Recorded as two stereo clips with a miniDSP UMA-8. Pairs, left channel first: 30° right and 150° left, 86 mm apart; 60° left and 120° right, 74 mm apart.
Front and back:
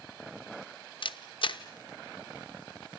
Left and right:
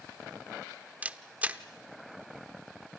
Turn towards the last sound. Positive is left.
turn(degrees=-50)